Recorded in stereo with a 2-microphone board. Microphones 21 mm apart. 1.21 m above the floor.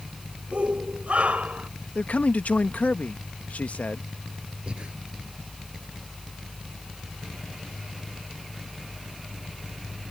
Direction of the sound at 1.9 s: 85° left.